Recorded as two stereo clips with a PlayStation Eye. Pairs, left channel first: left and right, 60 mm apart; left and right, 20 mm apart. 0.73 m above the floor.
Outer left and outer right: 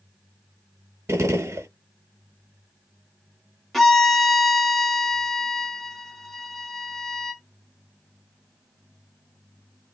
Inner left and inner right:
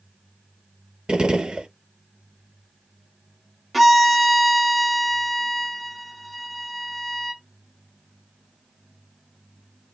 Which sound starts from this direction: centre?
A violin, at 3.7 s.